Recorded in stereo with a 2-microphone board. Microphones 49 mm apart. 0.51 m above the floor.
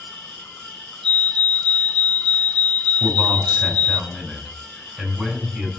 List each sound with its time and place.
0.0 s an insect: 30° left (ahead or behind), 7 m
1.0 s a fire alarm: 5° left (ahead or behind), 9 m
3.0 s a man speaking: 25° right (ahead or behind), 5.5 m